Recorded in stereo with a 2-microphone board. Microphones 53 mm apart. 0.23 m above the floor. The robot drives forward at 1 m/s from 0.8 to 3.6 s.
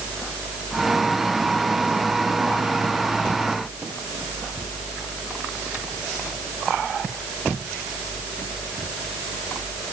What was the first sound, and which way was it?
Only background noise.